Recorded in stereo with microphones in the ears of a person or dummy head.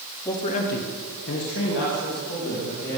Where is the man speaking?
15° left (ahead or behind), 0.7 m; by 3.0 s 60° left (ahead or behind), 2.5 m.